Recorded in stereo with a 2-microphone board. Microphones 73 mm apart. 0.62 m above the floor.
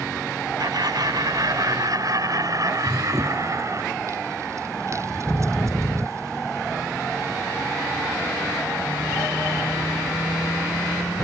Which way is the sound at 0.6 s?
65° right (ahead or behind).